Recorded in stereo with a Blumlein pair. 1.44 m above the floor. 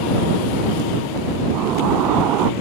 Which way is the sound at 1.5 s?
35° right.